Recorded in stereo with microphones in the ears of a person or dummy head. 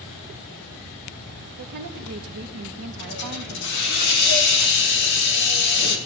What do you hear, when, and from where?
1.6 s a woman speaking: 55° right (ahead or behind), 1.0 m
3.0 s a hiss: 55° left (ahead or behind), 2.5 m